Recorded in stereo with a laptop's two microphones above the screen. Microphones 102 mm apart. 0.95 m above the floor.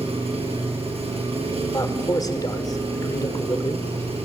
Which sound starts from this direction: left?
A man speaking, at 1.7 s.